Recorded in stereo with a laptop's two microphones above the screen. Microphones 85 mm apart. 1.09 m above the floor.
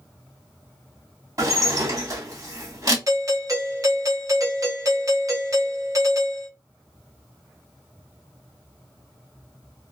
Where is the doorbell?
45° right (ahead or behind), 0.8 m.